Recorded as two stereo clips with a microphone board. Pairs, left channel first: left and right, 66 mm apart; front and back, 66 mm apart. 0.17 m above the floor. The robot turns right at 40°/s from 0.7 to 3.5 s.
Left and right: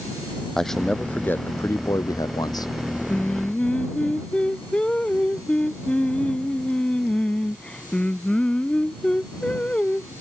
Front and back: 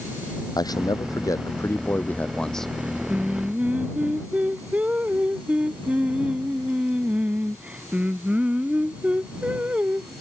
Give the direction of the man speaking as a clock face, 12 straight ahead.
12 o'clock.